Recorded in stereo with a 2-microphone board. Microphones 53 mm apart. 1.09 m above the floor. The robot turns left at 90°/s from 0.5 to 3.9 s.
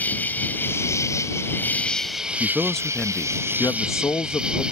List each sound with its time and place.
0.0 s an insect: 145° left; by 4.7 s 160° right
2.4 s a man speaking: 155° right; by 4.6 s 70° left